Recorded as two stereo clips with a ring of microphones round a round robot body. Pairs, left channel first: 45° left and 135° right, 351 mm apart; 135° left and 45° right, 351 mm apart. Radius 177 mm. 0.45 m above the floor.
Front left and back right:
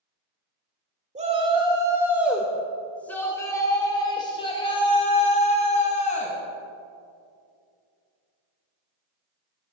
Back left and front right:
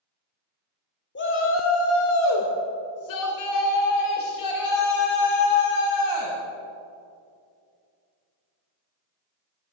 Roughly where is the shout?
Behind.